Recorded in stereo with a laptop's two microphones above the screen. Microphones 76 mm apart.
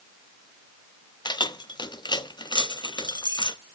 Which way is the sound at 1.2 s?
75° left (ahead or behind).